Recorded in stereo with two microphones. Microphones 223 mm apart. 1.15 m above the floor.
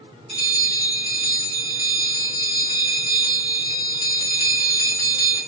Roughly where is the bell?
Right.